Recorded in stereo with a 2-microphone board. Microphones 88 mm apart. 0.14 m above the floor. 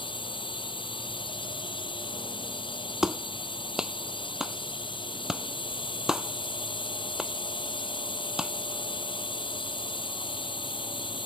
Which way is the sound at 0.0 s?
70° left (ahead or behind).